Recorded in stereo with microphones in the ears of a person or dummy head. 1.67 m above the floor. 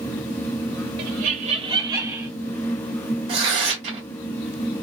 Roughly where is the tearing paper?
Right.